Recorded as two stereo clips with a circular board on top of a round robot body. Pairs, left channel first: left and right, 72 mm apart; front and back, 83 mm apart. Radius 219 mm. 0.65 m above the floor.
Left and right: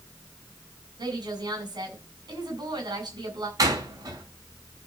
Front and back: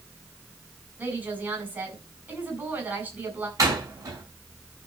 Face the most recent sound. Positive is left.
turn(degrees=-130)